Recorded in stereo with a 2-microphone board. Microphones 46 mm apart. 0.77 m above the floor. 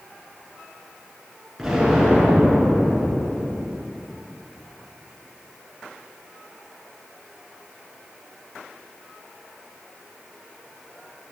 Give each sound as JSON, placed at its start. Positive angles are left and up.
{"t": 1.6, "sound": "an explosion", "side_deg": -5, "distance_m": 4.0}